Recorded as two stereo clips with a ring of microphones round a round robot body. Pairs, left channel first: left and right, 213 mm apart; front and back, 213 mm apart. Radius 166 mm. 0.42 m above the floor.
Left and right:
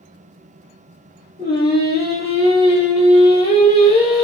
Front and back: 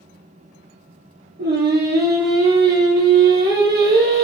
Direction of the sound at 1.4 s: 135° left.